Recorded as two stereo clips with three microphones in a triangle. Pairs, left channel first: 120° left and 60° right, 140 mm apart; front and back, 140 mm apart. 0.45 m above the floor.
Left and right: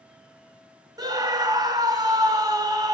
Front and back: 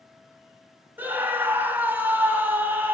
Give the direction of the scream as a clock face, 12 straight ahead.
4 o'clock.